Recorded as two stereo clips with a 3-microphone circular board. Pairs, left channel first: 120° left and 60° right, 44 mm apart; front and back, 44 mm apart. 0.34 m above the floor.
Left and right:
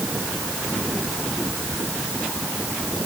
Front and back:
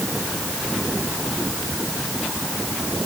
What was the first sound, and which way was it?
Only background noise.